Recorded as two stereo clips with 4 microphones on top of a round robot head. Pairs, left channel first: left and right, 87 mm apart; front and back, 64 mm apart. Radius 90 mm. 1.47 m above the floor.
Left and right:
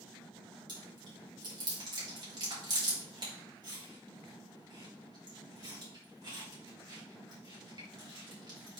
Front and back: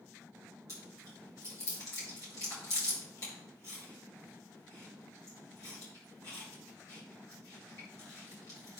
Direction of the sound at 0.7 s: 50° right.